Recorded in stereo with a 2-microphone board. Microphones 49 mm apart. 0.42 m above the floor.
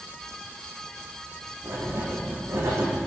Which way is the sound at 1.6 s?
85° right.